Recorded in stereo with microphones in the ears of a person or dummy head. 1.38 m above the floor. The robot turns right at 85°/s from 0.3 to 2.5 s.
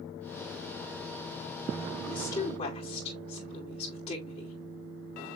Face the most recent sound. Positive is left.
turn(degrees=35)